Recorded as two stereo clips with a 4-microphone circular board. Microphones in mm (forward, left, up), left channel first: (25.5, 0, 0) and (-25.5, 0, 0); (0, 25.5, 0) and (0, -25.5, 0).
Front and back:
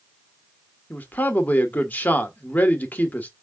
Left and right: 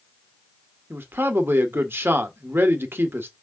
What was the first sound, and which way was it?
A man speaking, 50° right.